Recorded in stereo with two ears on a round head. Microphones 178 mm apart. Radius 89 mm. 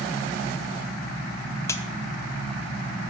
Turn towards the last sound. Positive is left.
turn(degrees=15)  # may be behind; listen again after turning